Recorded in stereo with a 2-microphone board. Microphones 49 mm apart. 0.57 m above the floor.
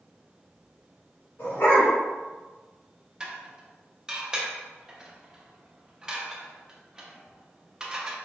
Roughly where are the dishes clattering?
Centre.